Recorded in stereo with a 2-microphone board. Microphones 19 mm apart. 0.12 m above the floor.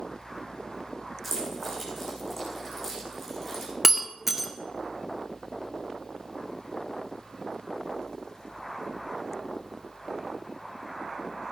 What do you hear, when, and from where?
1.2 s keys jangling: 5° left (ahead or behind), 6.5 m
3.8 s breaking glass: 15° right (ahead or behind), 1.3 m